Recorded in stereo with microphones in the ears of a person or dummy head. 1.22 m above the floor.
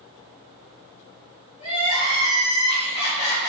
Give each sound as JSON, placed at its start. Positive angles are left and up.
{"t": 1.6, "sound": "crying", "side_deg": 40, "distance_m": 2.5}